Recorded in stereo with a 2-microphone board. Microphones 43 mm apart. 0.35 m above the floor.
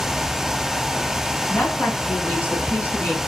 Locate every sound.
1.5 s a woman speaking: 55° left (ahead or behind), 2.5 m; by 3.2 s 50° left (ahead or behind), 4 m